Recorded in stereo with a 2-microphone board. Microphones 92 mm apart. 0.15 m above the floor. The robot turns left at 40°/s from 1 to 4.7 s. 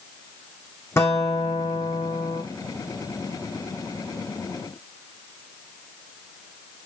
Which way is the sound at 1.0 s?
150° left.